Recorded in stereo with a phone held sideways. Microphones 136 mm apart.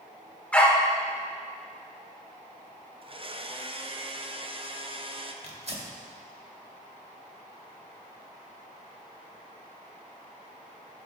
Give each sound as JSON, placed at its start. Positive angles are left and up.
{"t": 0.5, "sound": "a dog barking", "side_deg": 10, "distance_m": 1.5}
{"t": 3.0, "sound": "a blender", "side_deg": -40, "distance_m": 0.7}
{"t": 5.4, "sound": "tearing paper", "side_deg": -50, "distance_m": 2.0}